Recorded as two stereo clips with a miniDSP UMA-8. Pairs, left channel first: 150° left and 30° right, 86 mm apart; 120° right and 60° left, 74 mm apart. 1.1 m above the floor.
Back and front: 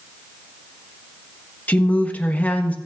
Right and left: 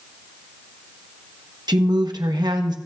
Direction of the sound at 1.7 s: 80° left.